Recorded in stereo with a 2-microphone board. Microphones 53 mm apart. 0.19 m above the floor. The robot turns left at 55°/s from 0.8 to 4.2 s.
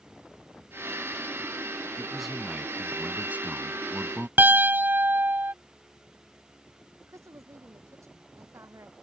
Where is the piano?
35° right (ahead or behind).